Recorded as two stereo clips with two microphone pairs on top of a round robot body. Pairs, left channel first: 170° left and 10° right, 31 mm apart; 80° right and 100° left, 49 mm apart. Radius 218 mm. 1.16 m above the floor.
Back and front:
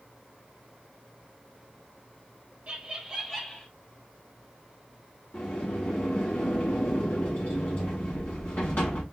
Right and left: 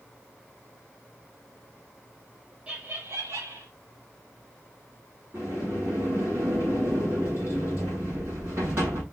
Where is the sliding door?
145° left, 0.9 m.